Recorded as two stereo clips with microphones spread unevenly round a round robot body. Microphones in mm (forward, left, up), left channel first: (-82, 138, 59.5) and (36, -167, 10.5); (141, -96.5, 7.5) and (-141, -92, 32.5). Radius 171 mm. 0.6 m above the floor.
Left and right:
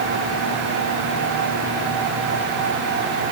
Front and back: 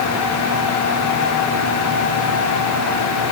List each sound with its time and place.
Only background noise.